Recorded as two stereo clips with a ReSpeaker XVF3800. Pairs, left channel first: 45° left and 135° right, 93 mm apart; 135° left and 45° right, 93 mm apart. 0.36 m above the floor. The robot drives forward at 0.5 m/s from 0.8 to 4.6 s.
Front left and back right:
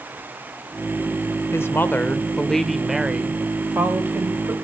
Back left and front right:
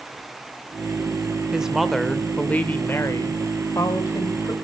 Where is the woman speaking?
25° left, 0.9 m; by 4.5 s 170° left, 1.4 m.